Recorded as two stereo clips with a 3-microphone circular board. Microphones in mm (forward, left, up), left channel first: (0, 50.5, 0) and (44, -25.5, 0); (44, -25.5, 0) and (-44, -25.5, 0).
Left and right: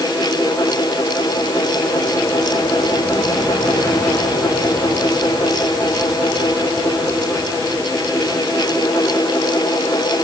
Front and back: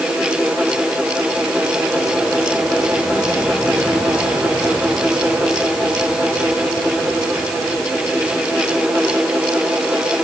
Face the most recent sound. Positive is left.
No sound to turn to.